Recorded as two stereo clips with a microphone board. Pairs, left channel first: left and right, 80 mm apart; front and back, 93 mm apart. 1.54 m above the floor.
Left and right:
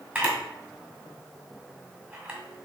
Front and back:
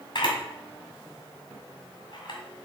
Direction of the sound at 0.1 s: 25° right.